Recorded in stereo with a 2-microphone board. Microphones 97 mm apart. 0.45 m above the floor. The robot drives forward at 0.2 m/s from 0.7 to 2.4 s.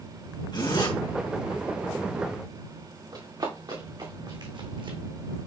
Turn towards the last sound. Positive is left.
turn(degrees=-60)  # may be behind; listen again after turning